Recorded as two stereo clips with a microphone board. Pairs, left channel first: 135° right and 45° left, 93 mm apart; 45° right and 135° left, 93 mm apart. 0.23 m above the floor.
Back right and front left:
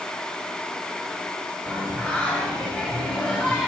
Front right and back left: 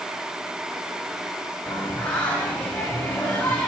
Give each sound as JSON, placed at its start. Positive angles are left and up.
{"t": 1.7, "sound": "singing", "azimuth_deg": -80, "distance_m": 0.8}